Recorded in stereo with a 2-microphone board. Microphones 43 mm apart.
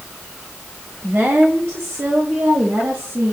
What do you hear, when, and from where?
1.0 s a woman speaking: 45° right (ahead or behind), 1.2 m; by 3.3 s 85° right, 3 m